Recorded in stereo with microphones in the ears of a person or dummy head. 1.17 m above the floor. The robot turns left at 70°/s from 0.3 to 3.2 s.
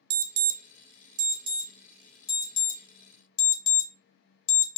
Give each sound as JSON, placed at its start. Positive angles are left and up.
{"t": 0.1, "sound": "an alarm", "side_deg": -65, "distance_m": 0.7}